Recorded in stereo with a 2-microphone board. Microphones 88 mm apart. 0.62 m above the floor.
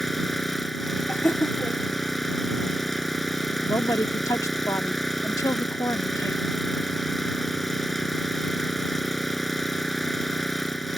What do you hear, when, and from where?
0.0 s an engine running: centre (ahead or behind)
1.1 s laughter: 25° left (ahead or behind)
3.6 s a woman speaking: 40° left (ahead or behind)